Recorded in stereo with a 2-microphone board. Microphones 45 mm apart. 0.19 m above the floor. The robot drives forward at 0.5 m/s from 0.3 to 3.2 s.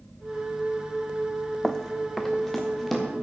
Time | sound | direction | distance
1.6 | running footsteps | 15° left (ahead or behind) | 0.5 m